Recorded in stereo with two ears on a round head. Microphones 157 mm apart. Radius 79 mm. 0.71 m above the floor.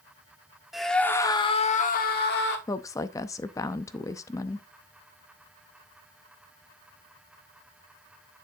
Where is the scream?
Centre (ahead or behind), 1.6 m; by 2.6 s 70° left (ahead or behind), 1.8 m.